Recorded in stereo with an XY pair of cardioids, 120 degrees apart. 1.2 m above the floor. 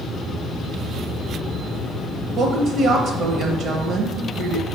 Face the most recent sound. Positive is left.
turn(degrees=-60)